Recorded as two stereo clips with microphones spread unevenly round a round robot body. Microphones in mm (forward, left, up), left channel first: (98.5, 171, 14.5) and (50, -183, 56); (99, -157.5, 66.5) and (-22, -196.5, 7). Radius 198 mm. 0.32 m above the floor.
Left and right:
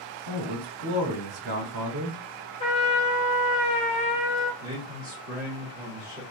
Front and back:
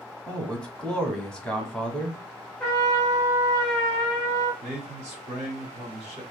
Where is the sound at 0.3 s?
100° right, 1.1 m.